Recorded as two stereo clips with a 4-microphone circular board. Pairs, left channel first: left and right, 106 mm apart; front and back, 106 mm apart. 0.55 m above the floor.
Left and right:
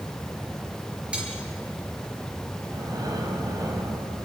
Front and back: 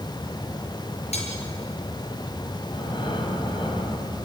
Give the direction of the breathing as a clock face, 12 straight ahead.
1 o'clock.